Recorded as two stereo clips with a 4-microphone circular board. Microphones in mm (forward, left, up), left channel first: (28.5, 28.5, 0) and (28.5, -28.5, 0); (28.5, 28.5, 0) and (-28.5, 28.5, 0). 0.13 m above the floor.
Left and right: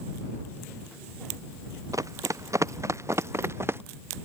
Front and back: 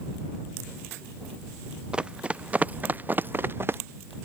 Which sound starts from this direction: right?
Running footsteps, at 1.9 s.